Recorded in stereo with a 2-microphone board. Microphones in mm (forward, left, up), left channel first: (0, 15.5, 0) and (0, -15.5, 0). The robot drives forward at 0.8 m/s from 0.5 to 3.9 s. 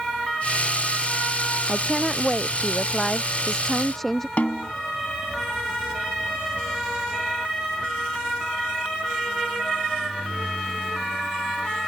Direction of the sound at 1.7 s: 10° left (ahead or behind).